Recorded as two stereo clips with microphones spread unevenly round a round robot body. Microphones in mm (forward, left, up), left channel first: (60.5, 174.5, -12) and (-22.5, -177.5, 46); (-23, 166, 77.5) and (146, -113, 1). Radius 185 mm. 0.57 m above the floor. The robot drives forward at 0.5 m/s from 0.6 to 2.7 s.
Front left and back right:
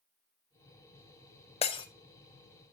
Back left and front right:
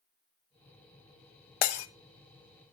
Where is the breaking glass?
150° left, 0.6 m; by 1.9 s 155° left, 0.7 m.